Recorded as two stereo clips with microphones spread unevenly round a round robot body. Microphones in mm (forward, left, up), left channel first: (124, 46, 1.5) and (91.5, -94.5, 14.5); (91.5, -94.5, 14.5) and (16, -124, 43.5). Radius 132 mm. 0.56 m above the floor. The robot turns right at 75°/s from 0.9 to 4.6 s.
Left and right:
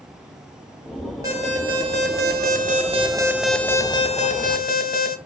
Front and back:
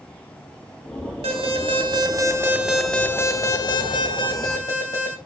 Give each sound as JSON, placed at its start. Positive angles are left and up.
{"t": 1.2, "sound": "an alarm", "azimuth_deg": 180, "distance_m": 2.0}